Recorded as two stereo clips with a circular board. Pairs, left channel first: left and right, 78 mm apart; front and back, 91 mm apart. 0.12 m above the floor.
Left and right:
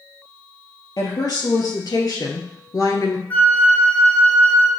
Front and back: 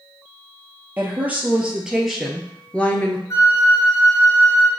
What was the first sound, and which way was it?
A woman speaking, 115° left.